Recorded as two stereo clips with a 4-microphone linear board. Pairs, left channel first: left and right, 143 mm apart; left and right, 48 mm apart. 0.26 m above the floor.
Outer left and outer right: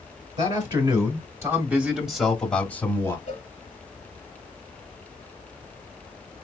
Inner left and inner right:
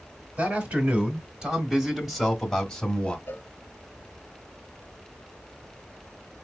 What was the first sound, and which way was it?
A man speaking, 40° right (ahead or behind).